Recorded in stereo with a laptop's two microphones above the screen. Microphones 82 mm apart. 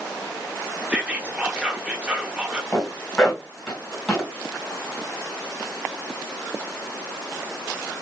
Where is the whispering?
15° right (ahead or behind), 1.0 m.